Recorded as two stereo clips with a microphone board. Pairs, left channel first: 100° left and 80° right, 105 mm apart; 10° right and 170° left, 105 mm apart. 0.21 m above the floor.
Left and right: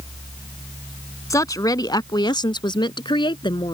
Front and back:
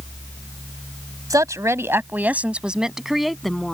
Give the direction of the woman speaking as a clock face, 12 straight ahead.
7 o'clock.